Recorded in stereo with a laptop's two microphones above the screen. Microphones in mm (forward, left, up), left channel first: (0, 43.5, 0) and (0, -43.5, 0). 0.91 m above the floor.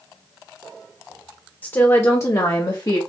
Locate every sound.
1.6 s a woman speaking: 25° left (ahead or behind), 1.0 m; by 3.0 s 50° left (ahead or behind), 1.1 m